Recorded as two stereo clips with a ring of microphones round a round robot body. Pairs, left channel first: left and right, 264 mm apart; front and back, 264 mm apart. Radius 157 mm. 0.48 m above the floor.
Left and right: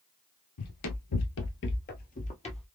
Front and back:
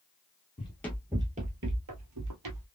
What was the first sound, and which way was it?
Running footsteps, 70° left.